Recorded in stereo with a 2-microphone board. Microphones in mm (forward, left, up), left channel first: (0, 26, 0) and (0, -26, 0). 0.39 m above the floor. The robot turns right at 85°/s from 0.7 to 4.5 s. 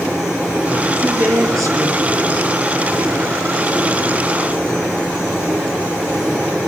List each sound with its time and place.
0.9 s a woman speaking: 145° right, 5 m; by 2.5 s 15° right, 5 m